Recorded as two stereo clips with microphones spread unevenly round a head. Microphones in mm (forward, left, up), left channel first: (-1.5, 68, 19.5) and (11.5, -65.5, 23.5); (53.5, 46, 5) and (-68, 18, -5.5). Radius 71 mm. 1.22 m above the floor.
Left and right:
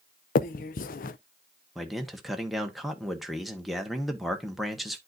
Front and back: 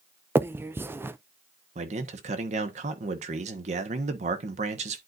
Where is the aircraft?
No aircraft in this recording.